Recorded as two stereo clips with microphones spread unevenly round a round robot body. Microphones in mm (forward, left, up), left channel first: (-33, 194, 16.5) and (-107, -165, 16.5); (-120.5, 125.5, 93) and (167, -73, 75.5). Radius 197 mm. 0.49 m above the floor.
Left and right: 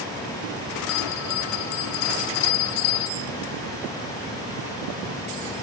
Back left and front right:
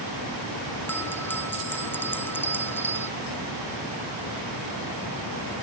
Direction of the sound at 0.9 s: 60° left.